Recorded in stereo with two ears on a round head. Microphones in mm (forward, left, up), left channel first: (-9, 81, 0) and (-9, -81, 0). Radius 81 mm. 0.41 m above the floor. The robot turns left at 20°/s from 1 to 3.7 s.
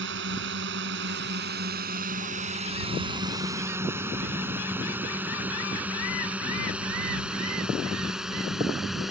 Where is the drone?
70° right (ahead or behind); by 9.1 s centre (ahead or behind).